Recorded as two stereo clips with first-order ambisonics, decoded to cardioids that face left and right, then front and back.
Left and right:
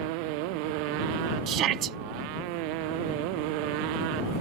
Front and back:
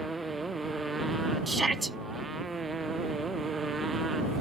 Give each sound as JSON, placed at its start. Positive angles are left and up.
{"t": 0.0, "sound": "a motorcycle", "azimuth_deg": -100}
{"t": 1.5, "sound": "a shout", "azimuth_deg": -105}